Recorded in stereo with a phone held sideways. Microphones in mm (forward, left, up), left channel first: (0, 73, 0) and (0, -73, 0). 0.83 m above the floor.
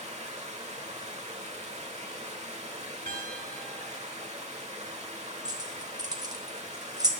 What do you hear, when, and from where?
0.0 s running water: 50° right (ahead or behind), 1.1 m
3.1 s a piano: 85° right, 1.4 m
5.5 s keys jangling: 25° right (ahead or behind), 0.9 m